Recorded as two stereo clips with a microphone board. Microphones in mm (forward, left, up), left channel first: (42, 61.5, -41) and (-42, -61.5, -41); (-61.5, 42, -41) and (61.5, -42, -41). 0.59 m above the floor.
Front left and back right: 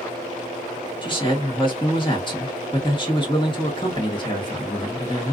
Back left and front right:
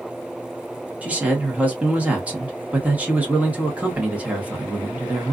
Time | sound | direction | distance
1.0 | a man speaking | 40° left | 1.1 m